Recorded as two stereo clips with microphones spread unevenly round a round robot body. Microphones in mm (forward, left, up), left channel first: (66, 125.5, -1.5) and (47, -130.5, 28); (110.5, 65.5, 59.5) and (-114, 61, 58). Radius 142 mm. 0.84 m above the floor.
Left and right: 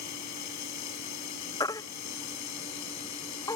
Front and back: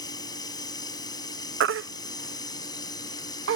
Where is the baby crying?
160° left.